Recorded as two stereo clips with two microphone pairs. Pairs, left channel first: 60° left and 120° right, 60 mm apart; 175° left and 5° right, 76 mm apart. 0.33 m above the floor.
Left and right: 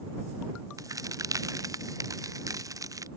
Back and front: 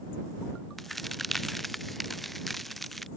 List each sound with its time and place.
0.8 s a crack: 95° right